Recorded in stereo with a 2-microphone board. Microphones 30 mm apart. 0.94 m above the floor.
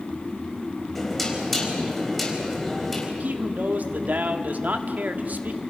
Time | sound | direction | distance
0.9 | knocking | 5° left (ahead or behind) | 4.5 m
3.2 | a man speaking | 70° right (ahead or behind) | 1.6 m